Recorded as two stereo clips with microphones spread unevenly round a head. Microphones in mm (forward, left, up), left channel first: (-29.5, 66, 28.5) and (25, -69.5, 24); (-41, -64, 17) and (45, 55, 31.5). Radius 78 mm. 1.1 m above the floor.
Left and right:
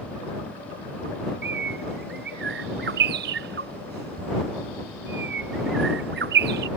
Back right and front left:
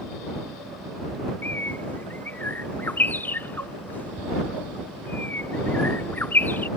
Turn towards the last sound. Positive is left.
turn(degrees=-45)